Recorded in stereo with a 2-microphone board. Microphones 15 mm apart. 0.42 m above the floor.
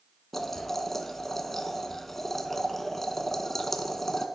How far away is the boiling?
About 0.8 m.